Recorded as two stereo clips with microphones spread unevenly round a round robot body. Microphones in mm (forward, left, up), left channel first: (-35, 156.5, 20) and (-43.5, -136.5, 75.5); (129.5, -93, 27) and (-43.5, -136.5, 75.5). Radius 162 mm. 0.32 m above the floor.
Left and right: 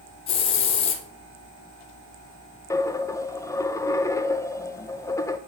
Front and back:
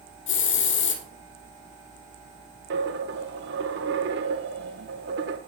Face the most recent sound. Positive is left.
turn(degrees=170)